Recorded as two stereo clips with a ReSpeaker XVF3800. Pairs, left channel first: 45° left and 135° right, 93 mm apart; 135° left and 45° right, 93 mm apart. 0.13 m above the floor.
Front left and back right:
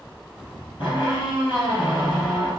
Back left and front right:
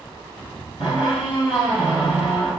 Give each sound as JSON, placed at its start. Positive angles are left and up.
{"t": 0.8, "sound": "a squeak", "azimuth_deg": 40, "distance_m": 1.9}